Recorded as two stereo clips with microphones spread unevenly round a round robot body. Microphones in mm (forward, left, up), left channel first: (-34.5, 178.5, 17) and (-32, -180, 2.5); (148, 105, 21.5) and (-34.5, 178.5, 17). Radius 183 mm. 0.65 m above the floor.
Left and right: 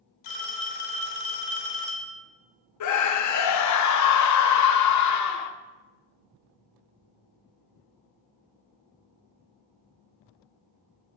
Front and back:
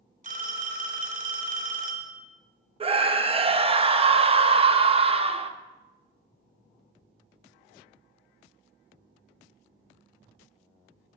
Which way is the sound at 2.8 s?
110° left.